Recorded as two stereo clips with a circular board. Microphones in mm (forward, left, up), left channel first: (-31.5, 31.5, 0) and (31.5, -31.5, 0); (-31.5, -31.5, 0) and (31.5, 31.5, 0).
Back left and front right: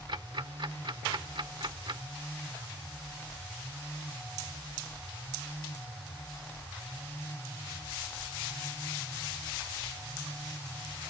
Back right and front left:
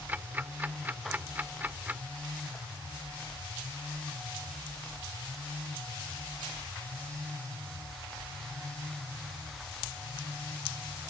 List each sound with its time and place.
0.1 s ticking: 25° right